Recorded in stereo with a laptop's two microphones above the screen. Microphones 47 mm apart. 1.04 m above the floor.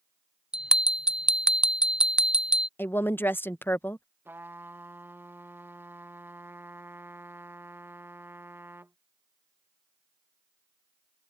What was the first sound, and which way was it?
A bell, 15° right (ahead or behind).